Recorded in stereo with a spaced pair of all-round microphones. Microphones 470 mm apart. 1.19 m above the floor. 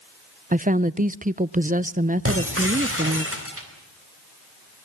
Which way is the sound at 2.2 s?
30° right (ahead or behind).